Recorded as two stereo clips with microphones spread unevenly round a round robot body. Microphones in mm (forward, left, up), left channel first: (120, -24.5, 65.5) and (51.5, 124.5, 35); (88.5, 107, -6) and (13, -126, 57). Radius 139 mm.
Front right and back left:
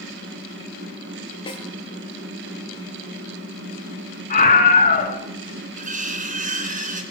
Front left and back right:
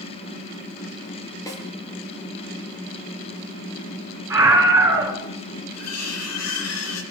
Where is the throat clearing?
I don't hear throat clearing.